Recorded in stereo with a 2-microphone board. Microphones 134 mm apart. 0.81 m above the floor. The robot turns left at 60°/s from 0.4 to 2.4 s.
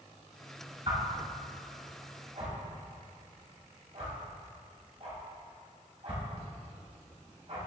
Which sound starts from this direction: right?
A whoosh, at 0.9 s.